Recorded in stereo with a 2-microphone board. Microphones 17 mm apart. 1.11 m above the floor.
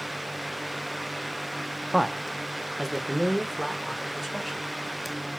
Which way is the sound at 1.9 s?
10° right (ahead or behind).